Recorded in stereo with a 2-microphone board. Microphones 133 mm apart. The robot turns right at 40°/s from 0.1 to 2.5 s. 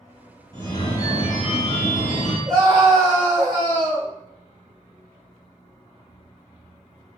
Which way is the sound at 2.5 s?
35° right (ahead or behind).